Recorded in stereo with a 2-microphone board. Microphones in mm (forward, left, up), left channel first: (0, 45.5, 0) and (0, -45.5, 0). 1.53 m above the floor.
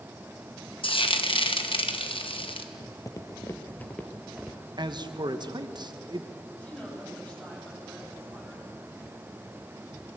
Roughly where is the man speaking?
Right.